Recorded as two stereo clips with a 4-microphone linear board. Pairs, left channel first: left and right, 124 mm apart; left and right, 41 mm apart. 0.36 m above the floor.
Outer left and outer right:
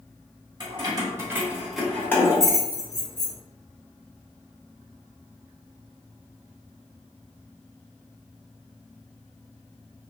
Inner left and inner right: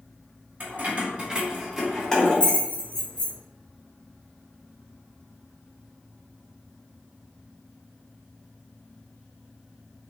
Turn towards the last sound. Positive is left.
turn(degrees=50)  # may be behind; listen again after turning